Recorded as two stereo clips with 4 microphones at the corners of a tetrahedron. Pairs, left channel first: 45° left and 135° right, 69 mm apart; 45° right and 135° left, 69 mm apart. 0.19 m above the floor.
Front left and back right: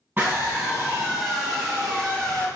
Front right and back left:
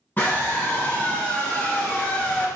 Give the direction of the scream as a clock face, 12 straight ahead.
3 o'clock.